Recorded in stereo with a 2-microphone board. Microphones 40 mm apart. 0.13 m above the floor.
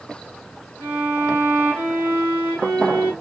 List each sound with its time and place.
0.8 s a violin: 75° right (ahead or behind), 8.5 m